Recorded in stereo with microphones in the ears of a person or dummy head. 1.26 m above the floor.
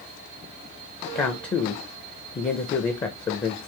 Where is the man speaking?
20° left (ahead or behind), 0.5 m.